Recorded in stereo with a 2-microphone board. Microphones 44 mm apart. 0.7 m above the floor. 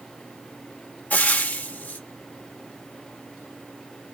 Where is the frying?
40° left (ahead or behind), 0.8 m.